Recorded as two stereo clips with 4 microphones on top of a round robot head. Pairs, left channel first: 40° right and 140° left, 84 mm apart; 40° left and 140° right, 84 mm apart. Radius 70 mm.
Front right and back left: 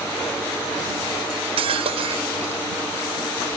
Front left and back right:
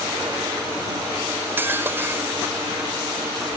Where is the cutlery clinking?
150° left.